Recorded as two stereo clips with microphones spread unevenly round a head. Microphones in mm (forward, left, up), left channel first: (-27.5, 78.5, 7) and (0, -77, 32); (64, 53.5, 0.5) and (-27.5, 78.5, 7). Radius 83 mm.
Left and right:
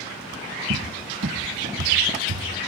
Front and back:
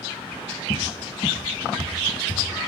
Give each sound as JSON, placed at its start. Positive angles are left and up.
{"t": 0.7, "sound": "a cupboard door", "azimuth_deg": -70, "distance_m": 0.8}